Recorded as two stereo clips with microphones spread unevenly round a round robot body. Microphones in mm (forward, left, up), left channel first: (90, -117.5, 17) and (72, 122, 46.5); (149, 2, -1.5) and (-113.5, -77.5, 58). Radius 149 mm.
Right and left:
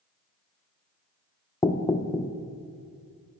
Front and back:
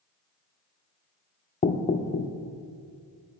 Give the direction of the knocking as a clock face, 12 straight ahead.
1 o'clock.